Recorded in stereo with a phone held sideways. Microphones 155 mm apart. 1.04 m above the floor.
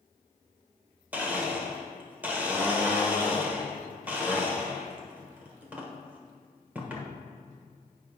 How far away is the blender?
About 1.1 m.